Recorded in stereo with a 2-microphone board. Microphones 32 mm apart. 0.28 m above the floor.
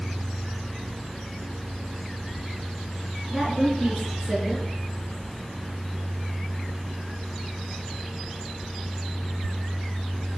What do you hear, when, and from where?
3.3 s a woman speaking: 15° right (ahead or behind), 3.5 m